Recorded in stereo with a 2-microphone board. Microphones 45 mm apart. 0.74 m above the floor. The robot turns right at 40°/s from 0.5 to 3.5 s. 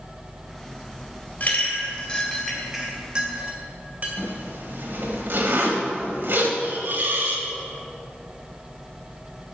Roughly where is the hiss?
Right.